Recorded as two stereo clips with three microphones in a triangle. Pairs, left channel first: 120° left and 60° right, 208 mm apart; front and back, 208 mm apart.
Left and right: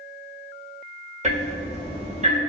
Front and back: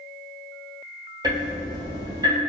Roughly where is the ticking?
Right.